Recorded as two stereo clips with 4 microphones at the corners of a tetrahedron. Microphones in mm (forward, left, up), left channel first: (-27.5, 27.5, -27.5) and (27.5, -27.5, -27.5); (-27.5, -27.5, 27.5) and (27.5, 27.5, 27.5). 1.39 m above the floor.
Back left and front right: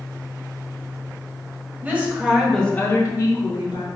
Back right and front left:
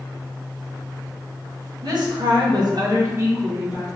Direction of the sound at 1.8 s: 20° left.